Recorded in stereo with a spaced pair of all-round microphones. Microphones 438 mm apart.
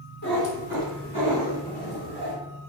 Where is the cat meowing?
50° right (ahead or behind), 1.6 m; by 2.3 s 60° right (ahead or behind), 3.5 m.